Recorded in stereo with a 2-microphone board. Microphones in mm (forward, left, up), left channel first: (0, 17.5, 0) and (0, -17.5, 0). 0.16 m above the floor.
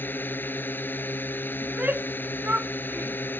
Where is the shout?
45° right (ahead or behind).